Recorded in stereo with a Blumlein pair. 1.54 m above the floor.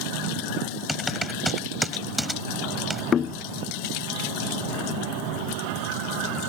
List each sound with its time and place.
0.9 s typing on a keyboard: straight ahead
3.1 s knocking: 25° left